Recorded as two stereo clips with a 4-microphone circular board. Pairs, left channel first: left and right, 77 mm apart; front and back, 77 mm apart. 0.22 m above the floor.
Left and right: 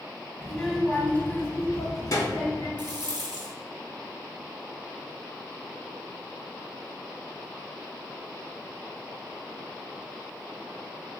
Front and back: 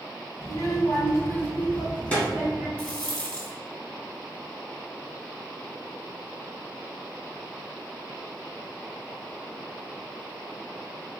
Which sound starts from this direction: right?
A rattle, at 2.8 s.